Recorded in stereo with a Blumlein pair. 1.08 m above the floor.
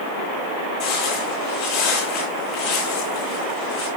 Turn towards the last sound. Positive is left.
turn(degrees=45)